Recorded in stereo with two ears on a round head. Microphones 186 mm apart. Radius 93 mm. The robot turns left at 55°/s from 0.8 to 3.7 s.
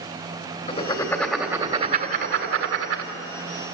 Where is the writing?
25° left (ahead or behind), 1.7 m; by 3.1 s 65° right (ahead or behind), 1.7 m.